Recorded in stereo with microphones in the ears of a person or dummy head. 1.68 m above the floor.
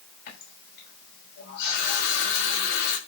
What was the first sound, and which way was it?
A running tap, 65° left (ahead or behind).